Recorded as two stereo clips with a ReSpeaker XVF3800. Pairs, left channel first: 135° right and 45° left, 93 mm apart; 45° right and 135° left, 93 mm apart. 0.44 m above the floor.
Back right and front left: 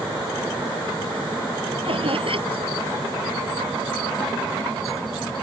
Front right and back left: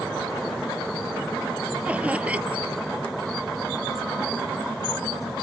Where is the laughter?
60° left.